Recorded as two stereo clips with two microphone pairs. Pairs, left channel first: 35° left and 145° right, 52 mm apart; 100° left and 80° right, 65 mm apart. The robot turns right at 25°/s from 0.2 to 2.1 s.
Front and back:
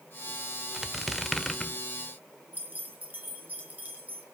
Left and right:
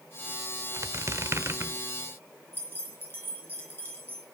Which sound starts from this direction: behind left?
Keys jangling, at 2.5 s.